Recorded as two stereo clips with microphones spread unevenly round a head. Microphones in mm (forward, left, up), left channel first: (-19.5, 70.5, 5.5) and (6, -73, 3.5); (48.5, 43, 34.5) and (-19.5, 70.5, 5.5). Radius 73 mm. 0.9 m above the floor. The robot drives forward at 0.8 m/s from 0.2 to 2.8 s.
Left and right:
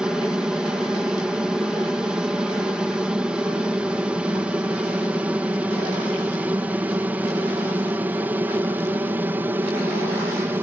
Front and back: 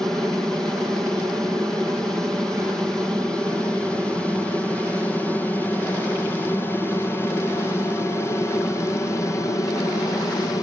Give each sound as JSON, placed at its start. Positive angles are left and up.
{"t": 0.0, "sound": "an aircraft", "azimuth_deg": -155}